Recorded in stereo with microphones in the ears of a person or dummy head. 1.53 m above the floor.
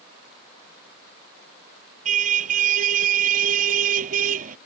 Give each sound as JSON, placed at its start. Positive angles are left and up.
{"t": 2.0, "sound": "a car horn", "side_deg": -40}